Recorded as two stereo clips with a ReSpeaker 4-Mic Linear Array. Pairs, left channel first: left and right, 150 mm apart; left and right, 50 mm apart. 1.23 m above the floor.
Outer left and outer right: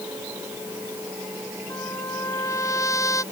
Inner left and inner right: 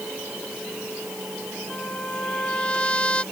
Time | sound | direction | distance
1.7 | a trumpet | 20° left (ahead or behind) | ?